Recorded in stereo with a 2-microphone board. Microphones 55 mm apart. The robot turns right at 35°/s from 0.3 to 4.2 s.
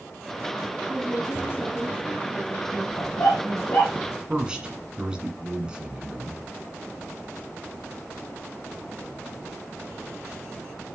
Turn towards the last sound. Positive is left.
turn(degrees=-15)  # may be behind; listen again after turning